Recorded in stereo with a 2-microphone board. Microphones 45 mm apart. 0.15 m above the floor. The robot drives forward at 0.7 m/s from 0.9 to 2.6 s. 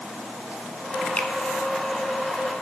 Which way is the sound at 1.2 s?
30° left (ahead or behind).